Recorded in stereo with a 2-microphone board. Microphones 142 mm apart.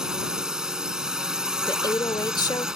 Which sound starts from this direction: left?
A woman speaking, at 1.7 s.